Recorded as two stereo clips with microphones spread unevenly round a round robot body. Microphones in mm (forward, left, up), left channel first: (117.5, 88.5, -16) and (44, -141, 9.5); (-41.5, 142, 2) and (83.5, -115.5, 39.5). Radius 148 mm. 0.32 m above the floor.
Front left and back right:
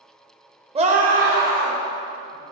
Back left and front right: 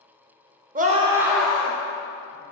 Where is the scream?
75° right, 0.8 m; by 2.4 s 175° right, 2.5 m.